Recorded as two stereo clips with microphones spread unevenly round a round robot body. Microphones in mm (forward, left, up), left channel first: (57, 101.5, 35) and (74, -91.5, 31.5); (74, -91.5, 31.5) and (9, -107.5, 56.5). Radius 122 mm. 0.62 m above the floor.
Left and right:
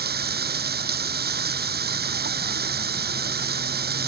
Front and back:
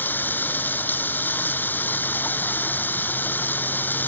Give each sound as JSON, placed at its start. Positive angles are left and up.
{"t": 0.0, "sound": "running water", "azimuth_deg": -50}